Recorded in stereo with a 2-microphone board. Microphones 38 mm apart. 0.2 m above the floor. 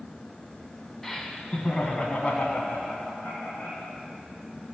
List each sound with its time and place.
1.0 s laughter: 10° left (ahead or behind), 1.2 m; by 3.9 s 40° left (ahead or behind), 2.5 m